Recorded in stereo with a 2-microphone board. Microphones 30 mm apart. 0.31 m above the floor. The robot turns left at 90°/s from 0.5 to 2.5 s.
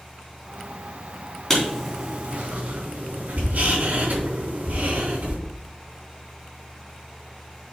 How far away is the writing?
About 3.5 m.